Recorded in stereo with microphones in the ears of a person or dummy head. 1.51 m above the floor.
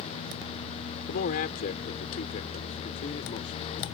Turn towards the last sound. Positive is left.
turn(degrees=40)  # may be behind; listen again after turning